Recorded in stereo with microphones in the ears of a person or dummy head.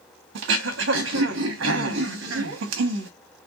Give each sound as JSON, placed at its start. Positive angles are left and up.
{"t": 0.3, "sound": "throat clearing", "side_deg": -65, "distance_m": 1.0}